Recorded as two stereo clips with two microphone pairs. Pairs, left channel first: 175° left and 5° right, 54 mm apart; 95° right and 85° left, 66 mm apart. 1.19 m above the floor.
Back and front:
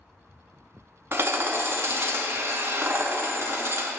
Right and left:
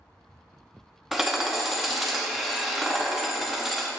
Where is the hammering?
Straight ahead, 0.7 m.